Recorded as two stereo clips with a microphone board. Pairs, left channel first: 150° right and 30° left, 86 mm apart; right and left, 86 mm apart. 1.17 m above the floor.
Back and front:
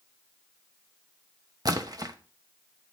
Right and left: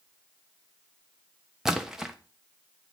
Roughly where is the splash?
Ahead.